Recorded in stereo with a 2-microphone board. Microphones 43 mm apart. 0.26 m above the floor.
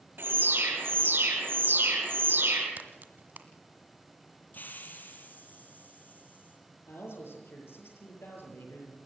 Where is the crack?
45° right (ahead or behind), 1.6 m.